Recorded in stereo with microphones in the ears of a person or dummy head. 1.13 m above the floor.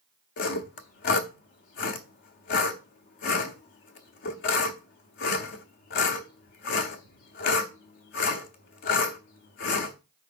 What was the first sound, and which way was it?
Sawing, 45° left (ahead or behind).